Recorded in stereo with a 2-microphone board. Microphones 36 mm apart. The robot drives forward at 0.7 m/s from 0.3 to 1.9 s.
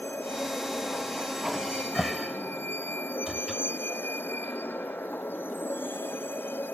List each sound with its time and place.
0.0 s a vehicle: 90° left; by 6.7 s 85° left
1.5 s a cupboard door: 5° right (ahead or behind)